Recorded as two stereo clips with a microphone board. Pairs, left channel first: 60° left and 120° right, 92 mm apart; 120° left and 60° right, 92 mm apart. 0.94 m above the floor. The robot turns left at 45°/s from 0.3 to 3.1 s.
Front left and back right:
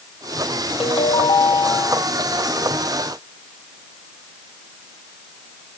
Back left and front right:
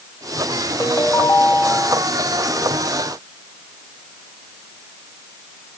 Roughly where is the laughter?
No laughter in this recording.